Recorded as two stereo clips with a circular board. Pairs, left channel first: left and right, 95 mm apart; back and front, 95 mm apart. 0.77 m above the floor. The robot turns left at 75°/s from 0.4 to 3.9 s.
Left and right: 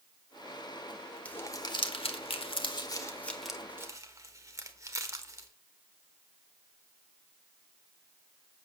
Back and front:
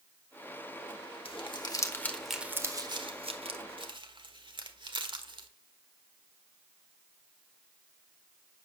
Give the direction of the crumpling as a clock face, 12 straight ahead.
6 o'clock.